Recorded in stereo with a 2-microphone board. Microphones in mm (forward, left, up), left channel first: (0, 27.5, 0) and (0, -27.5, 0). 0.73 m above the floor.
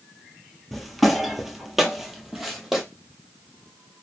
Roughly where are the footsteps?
Centre.